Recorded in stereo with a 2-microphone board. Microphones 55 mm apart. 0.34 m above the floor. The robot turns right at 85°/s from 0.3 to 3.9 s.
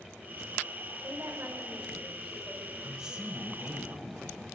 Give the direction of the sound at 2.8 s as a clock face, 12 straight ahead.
6 o'clock.